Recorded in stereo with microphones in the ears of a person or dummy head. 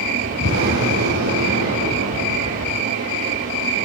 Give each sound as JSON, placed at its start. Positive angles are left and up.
{"t": 0.4, "sound": "an explosion", "side_deg": -80, "distance_m": 8.0}